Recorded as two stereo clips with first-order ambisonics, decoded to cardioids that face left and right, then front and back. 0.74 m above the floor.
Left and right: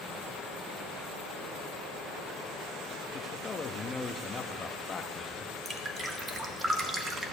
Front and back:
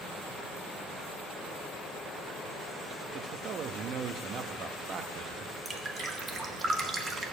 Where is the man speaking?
150° left, 0.8 m.